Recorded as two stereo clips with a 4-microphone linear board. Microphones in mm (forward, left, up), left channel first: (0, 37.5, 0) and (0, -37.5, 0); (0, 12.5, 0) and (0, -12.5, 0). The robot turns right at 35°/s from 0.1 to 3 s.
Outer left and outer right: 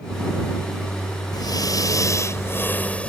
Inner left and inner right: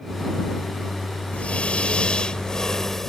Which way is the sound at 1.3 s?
105° left.